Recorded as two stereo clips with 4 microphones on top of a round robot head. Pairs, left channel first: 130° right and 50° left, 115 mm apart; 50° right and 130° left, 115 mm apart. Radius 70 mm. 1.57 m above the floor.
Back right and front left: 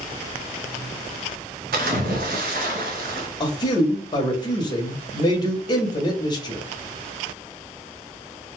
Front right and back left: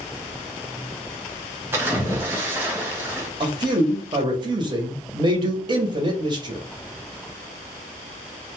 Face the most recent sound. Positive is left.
turn(degrees=180)